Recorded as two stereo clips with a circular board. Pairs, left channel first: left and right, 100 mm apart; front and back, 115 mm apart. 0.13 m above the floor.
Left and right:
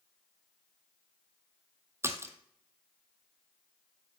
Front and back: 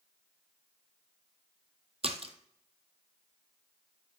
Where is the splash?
155° right, 1.0 m.